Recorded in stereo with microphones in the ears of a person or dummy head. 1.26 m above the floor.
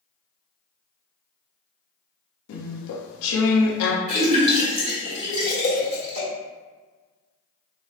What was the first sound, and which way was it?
Chewing, 80° left.